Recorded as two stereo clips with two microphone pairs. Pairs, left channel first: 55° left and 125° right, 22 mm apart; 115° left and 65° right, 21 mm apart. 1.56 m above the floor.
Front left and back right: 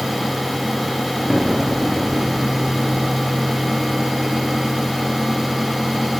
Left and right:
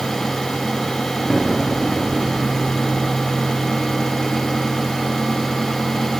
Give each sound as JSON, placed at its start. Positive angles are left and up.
{"t": 1.3, "sound": "an explosion", "azimuth_deg": -165, "distance_m": 1.2}